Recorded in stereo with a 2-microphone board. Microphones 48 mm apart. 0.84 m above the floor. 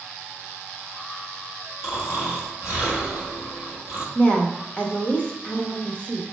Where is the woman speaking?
25° left (ahead or behind), 0.9 m.